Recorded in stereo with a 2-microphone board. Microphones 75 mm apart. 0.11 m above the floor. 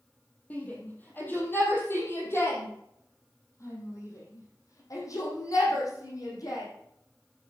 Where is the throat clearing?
I don't hear throat clearing.